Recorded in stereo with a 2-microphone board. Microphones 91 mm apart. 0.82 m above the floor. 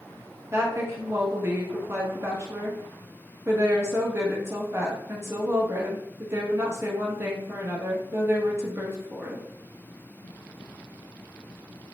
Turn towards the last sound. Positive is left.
turn(degrees=-25)  # may be behind; listen again after turning